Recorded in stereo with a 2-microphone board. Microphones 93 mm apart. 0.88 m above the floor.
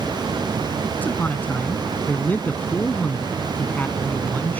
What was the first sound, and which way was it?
A man speaking, 15° left (ahead or behind).